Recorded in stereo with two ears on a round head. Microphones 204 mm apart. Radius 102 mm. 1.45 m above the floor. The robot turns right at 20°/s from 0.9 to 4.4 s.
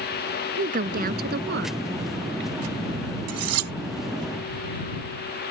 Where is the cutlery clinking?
85° right; by 3.7 s 75° right (ahead or behind).